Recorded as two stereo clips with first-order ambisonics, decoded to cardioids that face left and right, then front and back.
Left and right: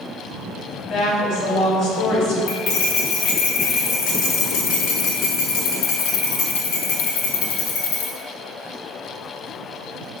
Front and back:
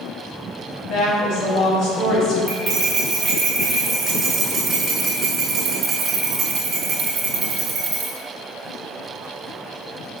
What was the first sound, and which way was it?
A woman speaking, 45° left.